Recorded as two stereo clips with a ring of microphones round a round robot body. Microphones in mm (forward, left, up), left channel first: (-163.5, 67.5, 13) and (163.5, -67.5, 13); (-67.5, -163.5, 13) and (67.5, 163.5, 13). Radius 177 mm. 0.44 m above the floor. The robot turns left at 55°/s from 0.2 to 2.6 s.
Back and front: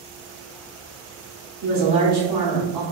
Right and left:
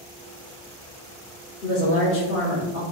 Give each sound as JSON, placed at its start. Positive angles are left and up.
{"t": 1.6, "sound": "a woman speaking", "azimuth_deg": -60, "distance_m": 1.1}